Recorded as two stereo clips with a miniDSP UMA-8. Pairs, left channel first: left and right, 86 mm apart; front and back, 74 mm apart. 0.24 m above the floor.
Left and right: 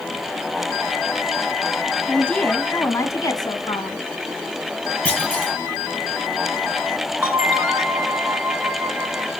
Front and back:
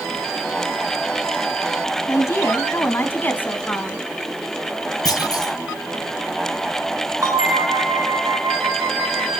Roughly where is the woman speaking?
Ahead.